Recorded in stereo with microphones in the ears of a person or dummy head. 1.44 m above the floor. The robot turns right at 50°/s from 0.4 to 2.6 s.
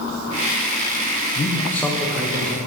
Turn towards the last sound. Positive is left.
turn(degrees=-35)  # may be behind; listen again after turning